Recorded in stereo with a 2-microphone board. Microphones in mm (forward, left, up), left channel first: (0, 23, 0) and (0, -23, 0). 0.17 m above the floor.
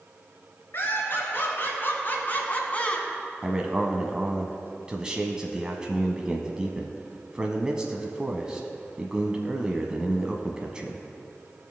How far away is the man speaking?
About 1.0 m.